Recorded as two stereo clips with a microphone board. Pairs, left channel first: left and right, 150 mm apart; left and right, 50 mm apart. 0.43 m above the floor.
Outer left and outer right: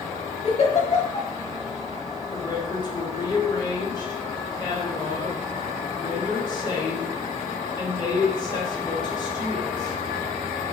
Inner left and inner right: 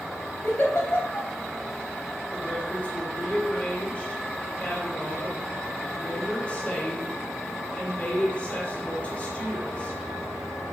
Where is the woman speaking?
30° left (ahead or behind), 1.1 m.